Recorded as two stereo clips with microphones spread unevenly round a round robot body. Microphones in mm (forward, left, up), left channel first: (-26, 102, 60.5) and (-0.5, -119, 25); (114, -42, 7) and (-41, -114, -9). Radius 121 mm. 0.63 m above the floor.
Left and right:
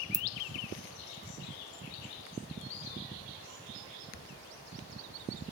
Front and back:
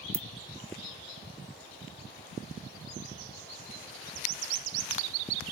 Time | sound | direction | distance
0.1 | a ringtone | 140° right | 0.8 m